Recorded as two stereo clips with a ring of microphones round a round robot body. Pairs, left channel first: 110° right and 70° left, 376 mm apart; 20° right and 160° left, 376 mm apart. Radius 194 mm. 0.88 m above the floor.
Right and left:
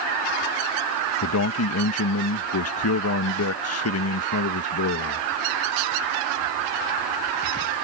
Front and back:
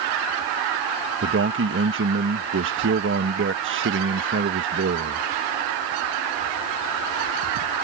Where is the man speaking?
155° right.